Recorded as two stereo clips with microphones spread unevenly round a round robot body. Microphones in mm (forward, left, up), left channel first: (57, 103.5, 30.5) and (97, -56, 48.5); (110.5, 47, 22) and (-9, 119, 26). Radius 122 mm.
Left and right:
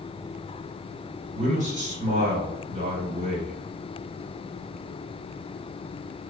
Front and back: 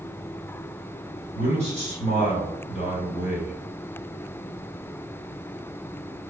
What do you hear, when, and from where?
1.4 s a man speaking: 50° right, 2.0 m